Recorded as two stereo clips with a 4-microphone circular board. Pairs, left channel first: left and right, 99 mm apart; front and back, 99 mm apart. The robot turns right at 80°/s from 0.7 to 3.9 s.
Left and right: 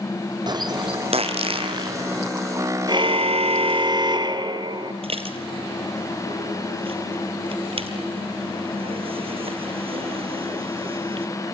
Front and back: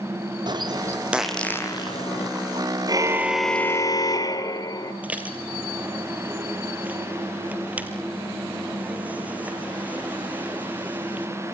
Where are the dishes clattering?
105° right, 3 m.